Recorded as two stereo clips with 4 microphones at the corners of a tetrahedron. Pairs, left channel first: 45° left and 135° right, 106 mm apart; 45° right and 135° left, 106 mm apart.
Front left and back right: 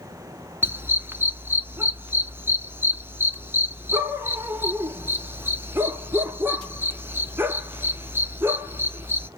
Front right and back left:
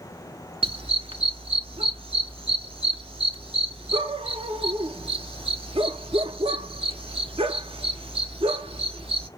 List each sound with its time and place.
0.6 s a dog barking: 155° left, 0.8 m